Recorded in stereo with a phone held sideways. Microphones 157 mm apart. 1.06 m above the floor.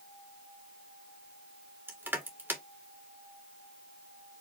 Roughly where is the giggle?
No giggle in this recording.